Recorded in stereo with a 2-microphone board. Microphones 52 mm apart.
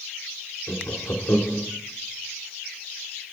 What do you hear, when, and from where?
0.7 s laughter: 55° left (ahead or behind), 2.5 m